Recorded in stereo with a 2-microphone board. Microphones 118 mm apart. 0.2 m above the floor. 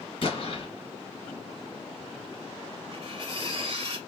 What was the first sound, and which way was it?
An explosion, 45° left (ahead or behind).